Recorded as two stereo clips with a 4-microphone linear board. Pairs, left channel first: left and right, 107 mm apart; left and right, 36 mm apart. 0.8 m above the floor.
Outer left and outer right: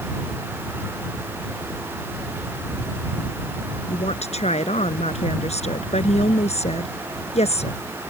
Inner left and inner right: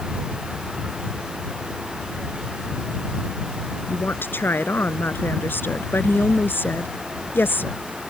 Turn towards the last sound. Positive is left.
turn(degrees=75)  # may be behind; listen again after turning